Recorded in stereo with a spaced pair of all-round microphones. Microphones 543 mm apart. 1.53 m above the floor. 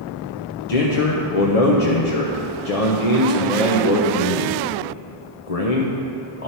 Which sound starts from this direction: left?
A man speaking, at 0.7 s.